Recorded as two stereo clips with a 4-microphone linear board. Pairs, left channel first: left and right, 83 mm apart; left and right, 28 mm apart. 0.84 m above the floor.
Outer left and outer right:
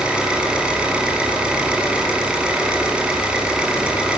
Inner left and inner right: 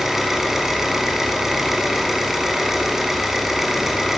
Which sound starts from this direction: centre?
An engine running, at 0.0 s.